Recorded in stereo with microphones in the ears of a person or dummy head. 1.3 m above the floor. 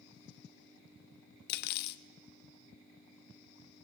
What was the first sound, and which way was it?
Cutlery clinking, 55° left (ahead or behind).